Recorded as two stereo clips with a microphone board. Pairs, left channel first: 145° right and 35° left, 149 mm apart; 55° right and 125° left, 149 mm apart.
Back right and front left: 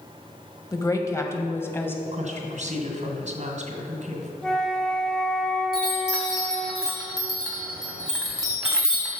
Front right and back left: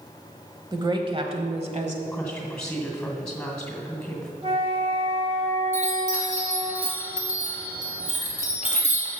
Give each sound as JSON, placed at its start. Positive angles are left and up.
{"t": 0.7, "sound": "a woman speaking", "azimuth_deg": 165, "distance_m": 1.1}
{"t": 2.0, "sound": "a woman speaking", "azimuth_deg": 30, "distance_m": 2.5}
{"t": 4.4, "sound": "a flute", "azimuth_deg": 130, "distance_m": 1.1}
{"t": 5.7, "sound": "a chime", "azimuth_deg": 120, "distance_m": 2.5}